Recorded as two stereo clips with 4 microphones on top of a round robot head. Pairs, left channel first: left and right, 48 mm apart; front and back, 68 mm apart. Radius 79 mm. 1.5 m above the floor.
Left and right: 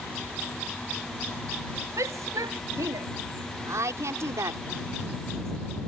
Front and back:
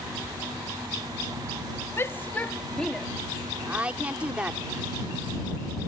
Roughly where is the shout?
Ahead right.